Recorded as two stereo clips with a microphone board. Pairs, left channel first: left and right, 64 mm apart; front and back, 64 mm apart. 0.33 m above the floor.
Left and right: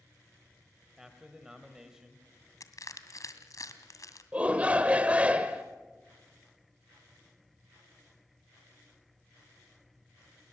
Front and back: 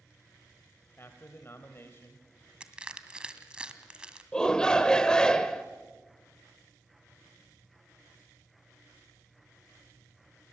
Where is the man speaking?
15° right, 1.8 m.